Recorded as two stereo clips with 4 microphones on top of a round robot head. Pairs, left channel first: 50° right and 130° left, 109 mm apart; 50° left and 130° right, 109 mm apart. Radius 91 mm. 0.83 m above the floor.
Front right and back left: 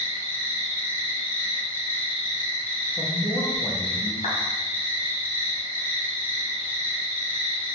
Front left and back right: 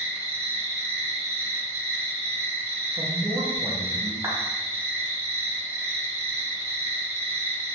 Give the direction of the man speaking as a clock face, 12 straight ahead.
3 o'clock.